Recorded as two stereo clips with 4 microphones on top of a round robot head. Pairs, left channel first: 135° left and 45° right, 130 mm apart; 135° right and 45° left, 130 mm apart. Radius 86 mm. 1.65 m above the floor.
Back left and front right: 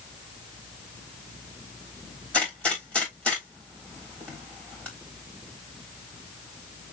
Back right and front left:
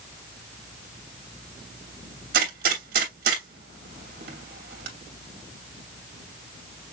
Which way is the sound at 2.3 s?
55° left.